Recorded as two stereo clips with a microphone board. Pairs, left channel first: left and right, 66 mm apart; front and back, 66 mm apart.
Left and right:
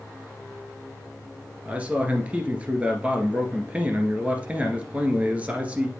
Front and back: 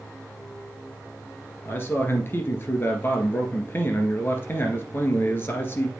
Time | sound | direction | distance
1.6 | a man speaking | 30° right | 1.8 m